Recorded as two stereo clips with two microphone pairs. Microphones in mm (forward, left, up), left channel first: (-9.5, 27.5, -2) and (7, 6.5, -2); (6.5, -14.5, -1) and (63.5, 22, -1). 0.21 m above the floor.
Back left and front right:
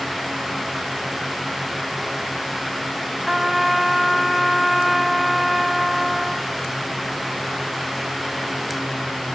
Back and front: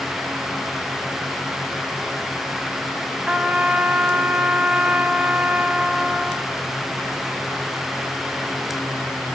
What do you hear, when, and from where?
3.3 s a trumpet: 30° left, 0.7 m